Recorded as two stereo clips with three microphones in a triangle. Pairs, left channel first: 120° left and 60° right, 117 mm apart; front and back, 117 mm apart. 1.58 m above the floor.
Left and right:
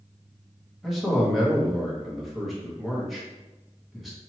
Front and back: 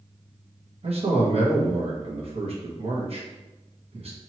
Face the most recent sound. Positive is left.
turn(degrees=-150)